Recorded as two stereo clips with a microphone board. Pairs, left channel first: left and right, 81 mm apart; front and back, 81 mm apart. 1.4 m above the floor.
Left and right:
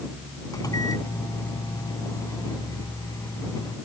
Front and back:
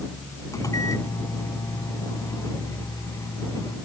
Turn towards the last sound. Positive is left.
turn(degrees=50)